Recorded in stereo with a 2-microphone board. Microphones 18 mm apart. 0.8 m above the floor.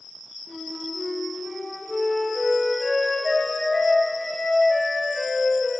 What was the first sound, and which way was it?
A flute, 10° left (ahead or behind).